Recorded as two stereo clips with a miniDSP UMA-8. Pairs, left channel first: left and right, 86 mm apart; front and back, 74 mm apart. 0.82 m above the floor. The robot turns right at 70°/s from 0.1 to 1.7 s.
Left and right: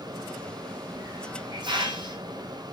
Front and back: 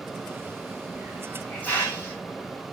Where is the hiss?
120° right, 4.5 m; by 2.6 s 65° right, 4.5 m.